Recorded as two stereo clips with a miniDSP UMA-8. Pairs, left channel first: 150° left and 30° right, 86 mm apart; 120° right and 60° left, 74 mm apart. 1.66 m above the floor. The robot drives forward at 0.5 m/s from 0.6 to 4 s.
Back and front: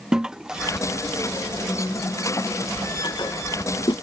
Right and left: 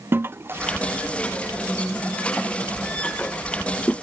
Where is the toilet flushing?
45° left; by 3.9 s 170° left.